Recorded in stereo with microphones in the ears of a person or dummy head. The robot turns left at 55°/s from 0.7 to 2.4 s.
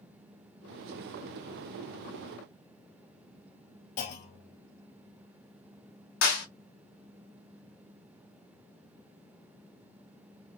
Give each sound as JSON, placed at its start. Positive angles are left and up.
{"t": 4.0, "sound": "a clunk", "side_deg": 60, "distance_m": 2.0}
{"t": 6.2, "sound": "a clap", "side_deg": 60, "distance_m": 2.0}